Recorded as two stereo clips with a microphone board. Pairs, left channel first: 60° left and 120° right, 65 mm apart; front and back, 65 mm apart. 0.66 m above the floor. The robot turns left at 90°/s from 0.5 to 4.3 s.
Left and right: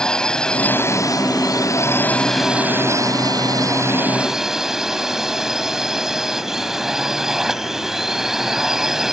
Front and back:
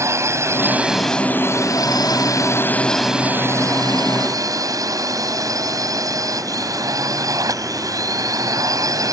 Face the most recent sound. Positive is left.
turn(degrees=155)